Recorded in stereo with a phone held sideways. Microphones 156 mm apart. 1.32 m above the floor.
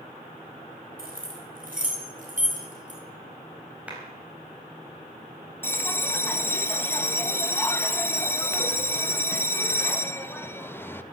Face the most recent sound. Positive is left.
turn(degrees=15)  # may be behind; listen again after turning